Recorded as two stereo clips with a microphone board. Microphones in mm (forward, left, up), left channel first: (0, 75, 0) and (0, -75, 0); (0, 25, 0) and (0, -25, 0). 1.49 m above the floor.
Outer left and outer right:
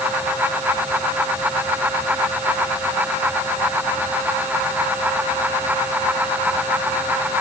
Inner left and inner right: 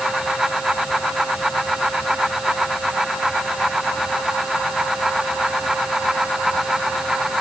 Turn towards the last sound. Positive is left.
No sound to turn to.